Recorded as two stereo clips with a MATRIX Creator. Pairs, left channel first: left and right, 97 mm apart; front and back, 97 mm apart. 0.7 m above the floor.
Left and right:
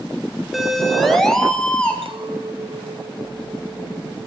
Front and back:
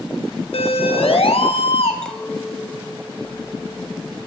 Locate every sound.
0.5 s a siren: 5° right, 4.5 m; by 1.9 s 10° left, 4.5 m
2.0 s a clink: 80° right, 3 m